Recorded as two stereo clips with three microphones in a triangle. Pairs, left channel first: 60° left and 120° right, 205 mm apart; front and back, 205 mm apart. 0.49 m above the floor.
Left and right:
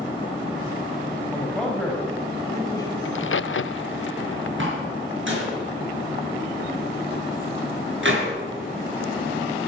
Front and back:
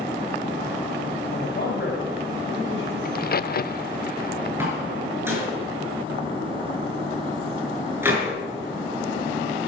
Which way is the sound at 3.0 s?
45° left.